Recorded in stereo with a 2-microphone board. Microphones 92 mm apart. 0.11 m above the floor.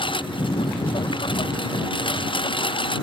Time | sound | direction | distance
0.0 | a lawn mower | 65° left (ahead or behind) | ?